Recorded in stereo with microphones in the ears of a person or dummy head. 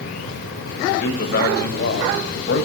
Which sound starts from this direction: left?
A man speaking, at 0.9 s.